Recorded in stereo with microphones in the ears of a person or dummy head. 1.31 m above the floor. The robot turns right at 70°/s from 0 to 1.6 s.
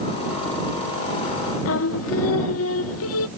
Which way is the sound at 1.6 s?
85° left.